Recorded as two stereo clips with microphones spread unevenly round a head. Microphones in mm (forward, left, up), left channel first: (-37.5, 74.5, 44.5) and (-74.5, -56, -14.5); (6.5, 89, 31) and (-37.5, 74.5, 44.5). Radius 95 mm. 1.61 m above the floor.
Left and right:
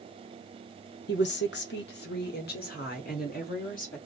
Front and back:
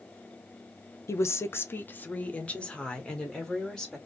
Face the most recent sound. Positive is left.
turn(degrees=95)